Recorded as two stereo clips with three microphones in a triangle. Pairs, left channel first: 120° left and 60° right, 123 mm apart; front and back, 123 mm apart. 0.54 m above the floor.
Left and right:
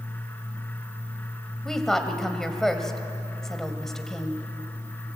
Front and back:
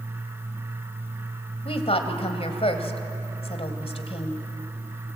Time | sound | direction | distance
1.6 | a woman speaking | 35° left | 2 m